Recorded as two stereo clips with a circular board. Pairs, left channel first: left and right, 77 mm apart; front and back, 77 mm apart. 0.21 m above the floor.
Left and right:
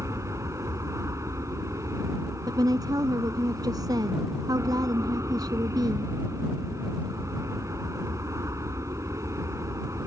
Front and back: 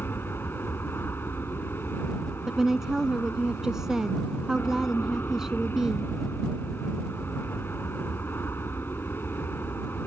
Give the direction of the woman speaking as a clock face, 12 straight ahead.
3 o'clock.